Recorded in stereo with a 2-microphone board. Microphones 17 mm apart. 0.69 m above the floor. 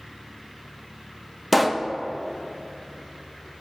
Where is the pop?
Centre (ahead or behind), 0.6 m.